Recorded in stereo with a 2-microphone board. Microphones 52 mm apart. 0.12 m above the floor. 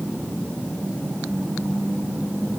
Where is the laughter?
I don't hear laughter.